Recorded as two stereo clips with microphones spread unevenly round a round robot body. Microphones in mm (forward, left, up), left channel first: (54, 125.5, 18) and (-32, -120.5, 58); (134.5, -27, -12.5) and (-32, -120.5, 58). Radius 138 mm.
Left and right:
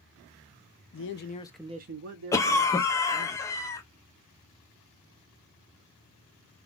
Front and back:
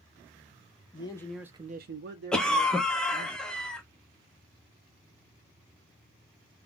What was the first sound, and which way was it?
A man speaking, 75° left.